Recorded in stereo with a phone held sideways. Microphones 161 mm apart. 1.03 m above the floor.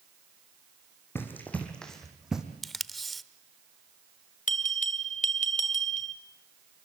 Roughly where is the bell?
Left.